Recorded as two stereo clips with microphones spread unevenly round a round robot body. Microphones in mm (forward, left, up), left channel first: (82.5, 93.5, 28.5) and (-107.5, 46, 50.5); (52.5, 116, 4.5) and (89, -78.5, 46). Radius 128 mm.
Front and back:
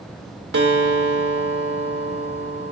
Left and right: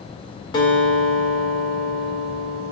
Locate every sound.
0.5 s a guitar: 165° left, 1.6 m